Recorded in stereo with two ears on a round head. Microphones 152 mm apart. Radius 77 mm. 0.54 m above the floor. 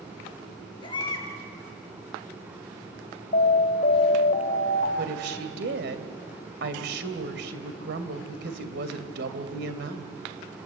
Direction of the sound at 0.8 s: 25° left (ahead or behind).